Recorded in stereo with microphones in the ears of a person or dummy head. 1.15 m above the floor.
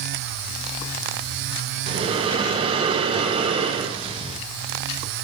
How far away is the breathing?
About 0.6 m.